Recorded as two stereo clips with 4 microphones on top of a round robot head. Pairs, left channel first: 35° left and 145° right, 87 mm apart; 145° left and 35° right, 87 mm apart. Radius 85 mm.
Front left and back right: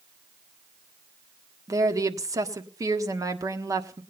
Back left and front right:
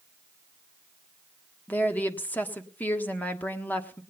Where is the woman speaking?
155° right, 1.6 m.